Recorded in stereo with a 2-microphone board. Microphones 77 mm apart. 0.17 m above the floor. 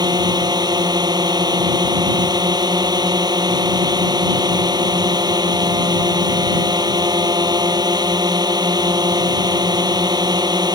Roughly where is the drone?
Right.